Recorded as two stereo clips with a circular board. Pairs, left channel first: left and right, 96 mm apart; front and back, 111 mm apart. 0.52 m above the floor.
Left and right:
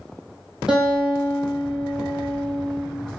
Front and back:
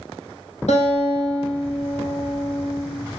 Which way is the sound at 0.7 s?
5° right.